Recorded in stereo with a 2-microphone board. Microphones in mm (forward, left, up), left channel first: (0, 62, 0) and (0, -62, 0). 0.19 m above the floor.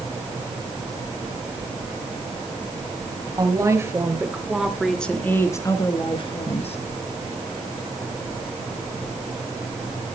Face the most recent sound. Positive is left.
turn(degrees=55)  # may be behind; listen again after turning